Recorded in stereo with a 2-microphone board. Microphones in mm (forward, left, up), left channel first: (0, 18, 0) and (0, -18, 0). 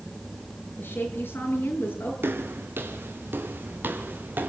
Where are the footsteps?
80° right, 4 m; by 4.5 s 60° right (ahead or behind), 4 m.